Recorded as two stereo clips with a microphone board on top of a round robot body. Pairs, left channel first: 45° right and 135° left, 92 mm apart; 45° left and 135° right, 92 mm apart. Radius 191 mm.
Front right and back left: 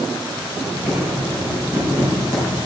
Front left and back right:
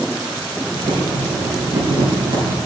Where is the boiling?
165° right, 4.5 m.